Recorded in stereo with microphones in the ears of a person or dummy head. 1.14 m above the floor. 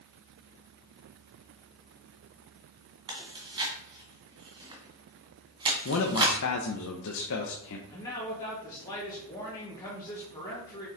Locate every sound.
3.1 s chewing: 25° right (ahead or behind), 2 m
5.8 s a man speaking: 70° left (ahead or behind), 0.9 m
7.9 s a man speaking: 20° left (ahead or behind), 2.0 m